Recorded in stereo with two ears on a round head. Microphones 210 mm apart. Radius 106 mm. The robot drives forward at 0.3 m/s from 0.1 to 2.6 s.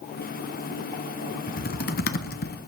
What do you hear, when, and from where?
1.5 s typing on a keyboard: 40° left (ahead or behind), 1.0 m; by 2.6 s 45° left (ahead or behind), 0.9 m